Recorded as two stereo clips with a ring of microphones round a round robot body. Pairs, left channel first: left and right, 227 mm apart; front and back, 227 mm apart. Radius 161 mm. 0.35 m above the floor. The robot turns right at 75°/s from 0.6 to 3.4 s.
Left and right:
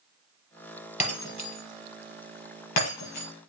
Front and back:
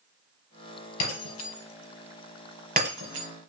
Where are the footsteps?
No footsteps in this recording.